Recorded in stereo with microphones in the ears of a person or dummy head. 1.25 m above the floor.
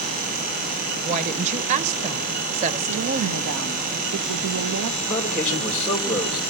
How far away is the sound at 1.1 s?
About 1.0 m.